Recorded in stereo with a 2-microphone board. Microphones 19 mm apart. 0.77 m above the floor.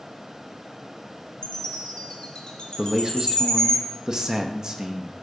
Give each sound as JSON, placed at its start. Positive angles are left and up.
{"t": 1.4, "sound": "a chime", "side_deg": 55, "distance_m": 1.7}
{"t": 2.8, "sound": "a man speaking", "side_deg": -35, "distance_m": 0.6}